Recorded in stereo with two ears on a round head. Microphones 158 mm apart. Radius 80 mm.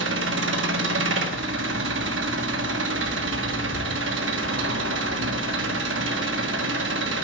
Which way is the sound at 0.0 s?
80° right.